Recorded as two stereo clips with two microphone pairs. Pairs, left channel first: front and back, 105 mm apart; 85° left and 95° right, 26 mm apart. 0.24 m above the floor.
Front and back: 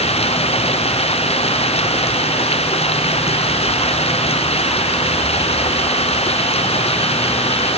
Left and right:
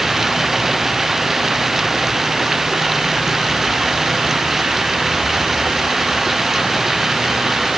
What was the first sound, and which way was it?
Running water, 20° right.